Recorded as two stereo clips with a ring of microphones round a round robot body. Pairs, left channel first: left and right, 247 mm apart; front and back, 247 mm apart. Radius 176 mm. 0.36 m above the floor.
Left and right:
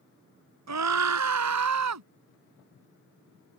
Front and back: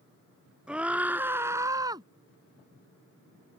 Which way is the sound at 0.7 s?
95° right.